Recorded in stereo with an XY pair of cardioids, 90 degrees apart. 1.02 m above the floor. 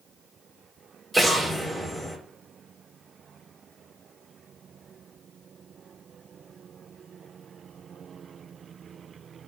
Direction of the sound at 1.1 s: 5° left.